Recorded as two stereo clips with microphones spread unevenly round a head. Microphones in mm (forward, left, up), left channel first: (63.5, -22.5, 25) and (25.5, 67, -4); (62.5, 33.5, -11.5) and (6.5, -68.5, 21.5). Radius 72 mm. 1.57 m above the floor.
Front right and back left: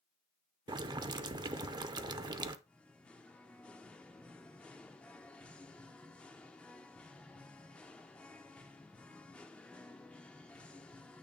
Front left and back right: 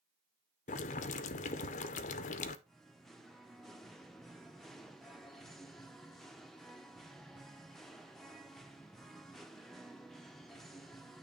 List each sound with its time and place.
0.7 s boiling: 65° left, 0.5 m
2.7 s singing: 55° right, 0.6 m